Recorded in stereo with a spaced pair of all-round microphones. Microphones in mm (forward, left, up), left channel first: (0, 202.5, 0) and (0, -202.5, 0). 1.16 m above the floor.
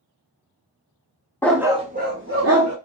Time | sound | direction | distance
1.4 | a dog barking | 5° left (ahead or behind) | 0.5 m